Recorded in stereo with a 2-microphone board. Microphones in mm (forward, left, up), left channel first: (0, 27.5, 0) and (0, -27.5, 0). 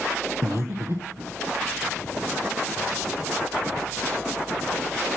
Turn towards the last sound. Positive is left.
turn(degrees=-50)  # may be behind; listen again after turning